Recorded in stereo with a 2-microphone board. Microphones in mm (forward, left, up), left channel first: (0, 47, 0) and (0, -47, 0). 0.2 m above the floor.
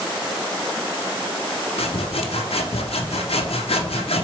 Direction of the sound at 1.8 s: 80° left.